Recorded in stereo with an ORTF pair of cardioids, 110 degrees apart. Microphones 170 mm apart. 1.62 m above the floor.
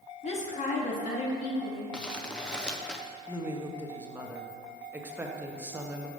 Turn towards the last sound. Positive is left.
turn(degrees=-10)